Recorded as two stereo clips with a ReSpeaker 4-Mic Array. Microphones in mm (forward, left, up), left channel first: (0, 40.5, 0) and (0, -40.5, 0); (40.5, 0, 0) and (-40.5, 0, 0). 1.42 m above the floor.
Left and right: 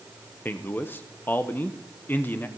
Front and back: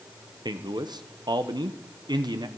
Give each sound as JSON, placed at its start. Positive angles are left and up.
{"t": 0.5, "sound": "a man speaking", "azimuth_deg": 155, "distance_m": 0.9}